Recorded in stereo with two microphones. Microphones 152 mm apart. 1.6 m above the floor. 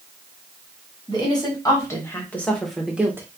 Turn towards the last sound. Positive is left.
turn(degrees=-15)  # may be behind; listen again after turning